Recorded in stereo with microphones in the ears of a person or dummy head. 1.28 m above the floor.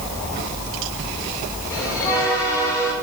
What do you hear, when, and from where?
1.7 s a bell: 15° left (ahead or behind), 5 m